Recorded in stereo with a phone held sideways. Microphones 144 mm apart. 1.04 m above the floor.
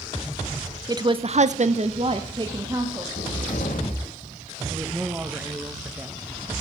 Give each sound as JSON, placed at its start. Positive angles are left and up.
{"t": 0.9, "sound": "a woman speaking", "side_deg": -25, "distance_m": 0.8}
{"t": 3.2, "sound": "a cupboard door", "side_deg": 75, "distance_m": 1.5}
{"t": 4.7, "sound": "a man speaking", "side_deg": -15, "distance_m": 0.9}